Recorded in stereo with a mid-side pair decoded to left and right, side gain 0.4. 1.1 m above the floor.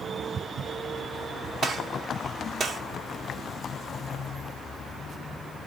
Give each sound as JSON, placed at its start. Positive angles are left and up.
{"t": 1.6, "sound": "a gunshot", "azimuth_deg": -60, "distance_m": 0.8}